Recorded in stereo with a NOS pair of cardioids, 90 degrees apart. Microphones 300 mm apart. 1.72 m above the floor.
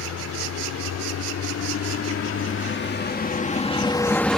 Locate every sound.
0.0 s a vehicle: 70° left; by 4.4 s straight ahead